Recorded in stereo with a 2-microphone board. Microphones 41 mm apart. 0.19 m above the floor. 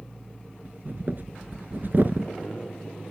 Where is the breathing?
50° right (ahead or behind), 1.0 m.